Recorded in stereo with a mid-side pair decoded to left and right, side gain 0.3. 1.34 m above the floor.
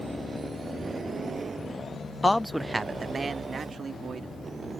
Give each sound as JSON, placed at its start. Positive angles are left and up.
{"t": 2.2, "sound": "a man speaking", "azimuth_deg": 25}